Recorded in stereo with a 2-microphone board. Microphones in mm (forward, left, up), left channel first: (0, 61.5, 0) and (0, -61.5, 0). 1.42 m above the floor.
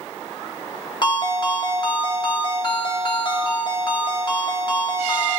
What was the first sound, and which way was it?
A ringtone, 35° left (ahead or behind).